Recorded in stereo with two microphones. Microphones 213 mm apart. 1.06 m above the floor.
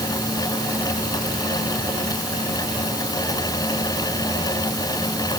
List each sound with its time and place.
Only background noise.